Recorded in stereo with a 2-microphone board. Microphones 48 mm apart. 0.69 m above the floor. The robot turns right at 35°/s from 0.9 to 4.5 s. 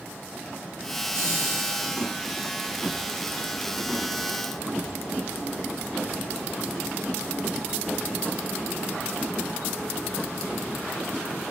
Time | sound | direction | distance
1.1 | laughter | 100° right | 3.5 m